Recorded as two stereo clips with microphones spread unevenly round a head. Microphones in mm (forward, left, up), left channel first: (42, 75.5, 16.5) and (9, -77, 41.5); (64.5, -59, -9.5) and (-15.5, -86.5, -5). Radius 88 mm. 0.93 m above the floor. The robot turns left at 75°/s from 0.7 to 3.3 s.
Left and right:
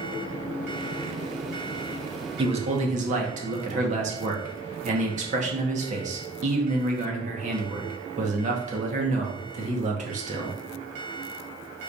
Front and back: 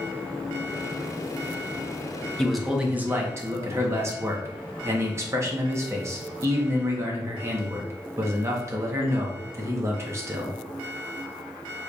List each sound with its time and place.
2.4 s a man speaking: 55° right, 0.9 m; by 10.6 s 120° right, 0.9 m